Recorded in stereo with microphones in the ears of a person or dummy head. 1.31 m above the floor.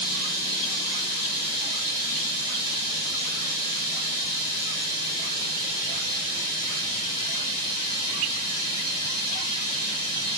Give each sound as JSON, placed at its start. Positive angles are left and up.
{"t": 0.0, "sound": "running water", "side_deg": 50, "distance_m": 4.5}